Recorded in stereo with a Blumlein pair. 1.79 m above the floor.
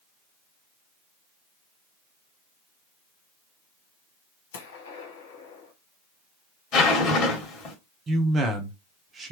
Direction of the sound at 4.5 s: 60° left.